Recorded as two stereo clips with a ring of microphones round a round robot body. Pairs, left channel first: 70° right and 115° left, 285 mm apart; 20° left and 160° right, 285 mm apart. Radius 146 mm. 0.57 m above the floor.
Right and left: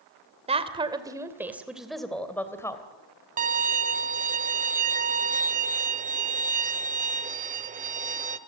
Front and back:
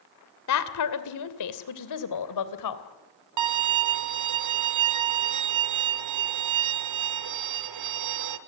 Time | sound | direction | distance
0.5 | a woman speaking | 45° left | 2.5 m
3.4 | a violin | 175° left | 1.4 m